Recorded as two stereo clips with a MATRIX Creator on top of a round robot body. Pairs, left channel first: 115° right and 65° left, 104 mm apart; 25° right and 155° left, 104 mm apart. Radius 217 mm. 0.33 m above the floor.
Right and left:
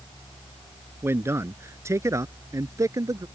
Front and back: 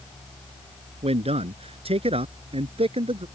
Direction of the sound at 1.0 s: 135° left.